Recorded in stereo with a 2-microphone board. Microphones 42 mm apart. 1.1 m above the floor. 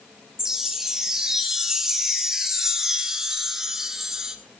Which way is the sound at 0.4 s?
10° right (ahead or behind).